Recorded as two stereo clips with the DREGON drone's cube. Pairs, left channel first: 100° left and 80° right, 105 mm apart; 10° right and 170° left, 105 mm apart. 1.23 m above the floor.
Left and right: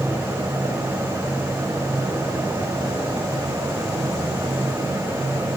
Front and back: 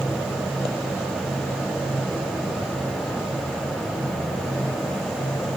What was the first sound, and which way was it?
Only background noise.